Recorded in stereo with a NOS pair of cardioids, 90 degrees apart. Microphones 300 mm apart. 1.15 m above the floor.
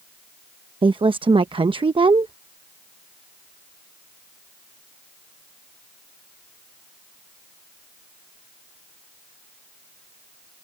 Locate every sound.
0.8 s a woman speaking: 15° right